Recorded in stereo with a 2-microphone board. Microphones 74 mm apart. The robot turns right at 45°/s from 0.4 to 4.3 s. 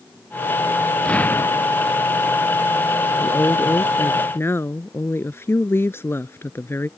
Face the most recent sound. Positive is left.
turn(degrees=125)